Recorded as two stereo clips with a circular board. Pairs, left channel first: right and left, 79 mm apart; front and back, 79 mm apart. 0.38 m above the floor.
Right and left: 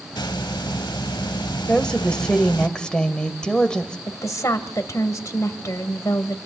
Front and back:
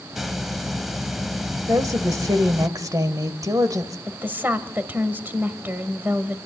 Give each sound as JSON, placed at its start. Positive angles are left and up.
{"t": 0.1, "sound": "a hiss", "azimuth_deg": -90, "distance_m": 1.0}
{"t": 1.7, "sound": "a woman speaking", "azimuth_deg": -165, "distance_m": 1.6}
{"t": 4.1, "sound": "a woman speaking", "azimuth_deg": -120, "distance_m": 1.7}